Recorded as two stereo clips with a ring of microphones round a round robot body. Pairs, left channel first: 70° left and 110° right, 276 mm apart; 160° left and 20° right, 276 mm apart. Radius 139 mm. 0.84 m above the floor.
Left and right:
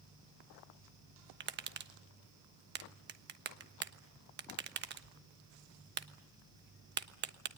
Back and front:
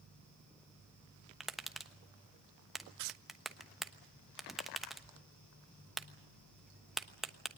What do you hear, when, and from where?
1.4 s tapping: 110° right, 1.1 m